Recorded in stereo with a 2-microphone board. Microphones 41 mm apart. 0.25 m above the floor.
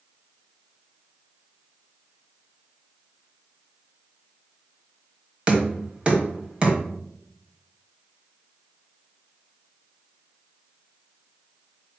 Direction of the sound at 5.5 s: 30° right (ahead or behind).